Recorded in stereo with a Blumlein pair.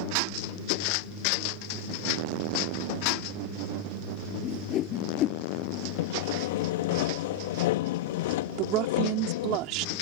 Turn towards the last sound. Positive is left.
turn(degrees=-40)